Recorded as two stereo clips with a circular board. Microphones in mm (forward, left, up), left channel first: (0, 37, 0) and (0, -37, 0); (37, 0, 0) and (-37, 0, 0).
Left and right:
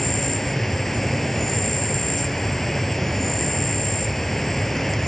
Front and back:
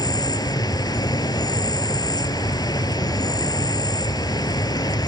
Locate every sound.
0.0 s an insect: 5° left, 0.8 m